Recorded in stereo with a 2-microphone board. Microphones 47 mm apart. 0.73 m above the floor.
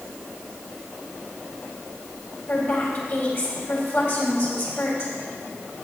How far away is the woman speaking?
About 4 m.